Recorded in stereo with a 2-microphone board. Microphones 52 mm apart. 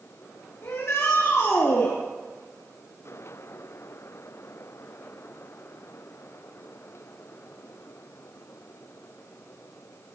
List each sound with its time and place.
0.6 s a shout: 65° left (ahead or behind), 3.5 m